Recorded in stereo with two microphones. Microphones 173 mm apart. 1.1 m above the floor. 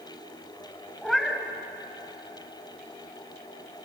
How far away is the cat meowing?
About 1.9 m.